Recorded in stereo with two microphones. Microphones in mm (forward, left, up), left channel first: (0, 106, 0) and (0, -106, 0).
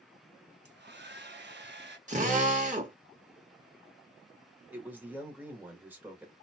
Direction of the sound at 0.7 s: 55° right (ahead or behind).